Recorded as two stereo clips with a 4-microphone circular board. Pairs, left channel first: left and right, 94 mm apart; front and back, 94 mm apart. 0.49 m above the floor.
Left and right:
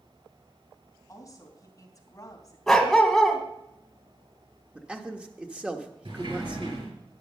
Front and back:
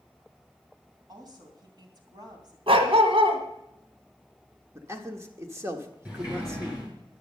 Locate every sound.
1.1 s a woman speaking: 140° left, 3 m
2.7 s a dog barking: 175° left, 1.6 m
4.8 s a man speaking: 160° right, 1.2 m
6.0 s a sliding door: 100° right, 6.5 m